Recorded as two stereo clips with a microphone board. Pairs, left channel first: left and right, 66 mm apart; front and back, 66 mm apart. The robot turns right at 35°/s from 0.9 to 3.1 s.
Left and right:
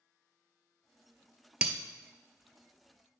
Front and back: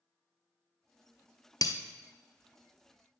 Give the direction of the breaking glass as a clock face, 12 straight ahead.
12 o'clock.